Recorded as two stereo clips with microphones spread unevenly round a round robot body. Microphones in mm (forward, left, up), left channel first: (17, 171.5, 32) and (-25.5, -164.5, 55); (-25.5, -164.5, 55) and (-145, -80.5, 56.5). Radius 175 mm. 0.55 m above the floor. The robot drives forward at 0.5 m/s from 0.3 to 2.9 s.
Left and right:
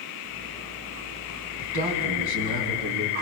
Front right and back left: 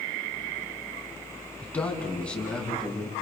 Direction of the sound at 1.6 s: 115° right.